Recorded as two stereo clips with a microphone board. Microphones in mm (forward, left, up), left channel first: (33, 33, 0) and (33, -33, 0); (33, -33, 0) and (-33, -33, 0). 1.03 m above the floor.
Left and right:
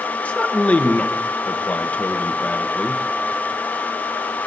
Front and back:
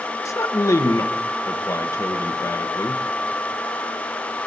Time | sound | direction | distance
0.2 | a man speaking | 25° left | 0.9 m